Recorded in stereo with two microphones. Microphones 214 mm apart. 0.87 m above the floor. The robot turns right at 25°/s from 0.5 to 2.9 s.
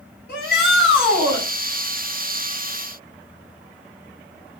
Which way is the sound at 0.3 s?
50° left (ahead or behind).